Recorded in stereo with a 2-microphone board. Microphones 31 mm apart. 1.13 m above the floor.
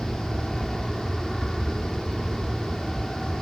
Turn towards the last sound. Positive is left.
turn(degrees=10)  # may be behind; listen again after turning